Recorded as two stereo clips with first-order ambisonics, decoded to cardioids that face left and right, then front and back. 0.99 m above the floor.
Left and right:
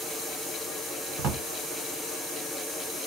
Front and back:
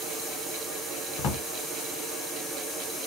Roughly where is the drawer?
Ahead right.